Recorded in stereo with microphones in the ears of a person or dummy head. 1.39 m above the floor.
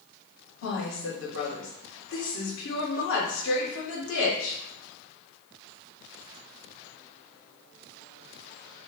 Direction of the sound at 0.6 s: 65° left (ahead or behind).